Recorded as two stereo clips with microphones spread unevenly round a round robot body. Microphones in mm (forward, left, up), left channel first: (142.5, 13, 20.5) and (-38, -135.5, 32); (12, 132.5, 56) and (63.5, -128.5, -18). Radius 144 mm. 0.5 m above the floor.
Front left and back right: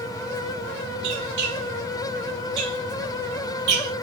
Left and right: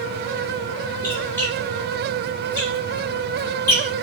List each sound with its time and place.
1.0 s a squeak: 175° right, 3.5 m